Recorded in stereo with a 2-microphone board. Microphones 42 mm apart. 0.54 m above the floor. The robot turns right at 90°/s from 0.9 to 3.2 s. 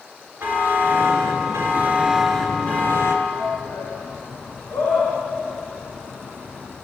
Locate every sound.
0.4 s a buzzer: 125° right, 5 m; by 3.1 s 80° left, 5 m
3.2 s a shout: 80° left, 6.5 m